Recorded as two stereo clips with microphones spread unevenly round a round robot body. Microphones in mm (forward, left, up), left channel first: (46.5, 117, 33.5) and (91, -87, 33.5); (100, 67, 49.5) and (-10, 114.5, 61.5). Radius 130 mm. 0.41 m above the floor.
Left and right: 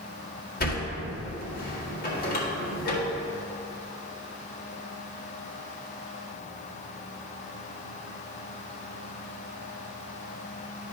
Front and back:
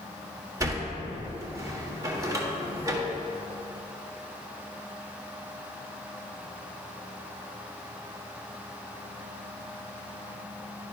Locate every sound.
0.6 s a sliding door: 100° left, 1.7 m